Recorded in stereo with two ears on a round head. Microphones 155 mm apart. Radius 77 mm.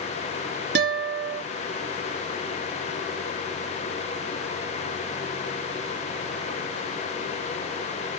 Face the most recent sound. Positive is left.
turn(degrees=-75)  # may be behind; listen again after turning